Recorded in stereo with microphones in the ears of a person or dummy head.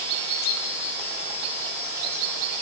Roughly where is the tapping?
I don't hear tapping.